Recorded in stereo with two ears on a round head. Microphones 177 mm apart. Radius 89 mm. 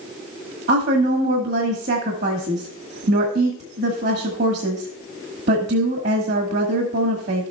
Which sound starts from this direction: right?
A woman speaking, at 0.7 s.